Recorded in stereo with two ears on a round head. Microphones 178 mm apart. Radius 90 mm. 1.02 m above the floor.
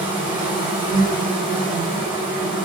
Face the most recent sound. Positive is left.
turn(degrees=-25)  # may be behind; listen again after turning